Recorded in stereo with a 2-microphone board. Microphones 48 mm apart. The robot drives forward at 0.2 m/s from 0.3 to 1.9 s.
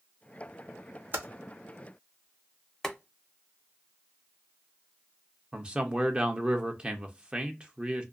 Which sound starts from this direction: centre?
Boiling, at 2.8 s.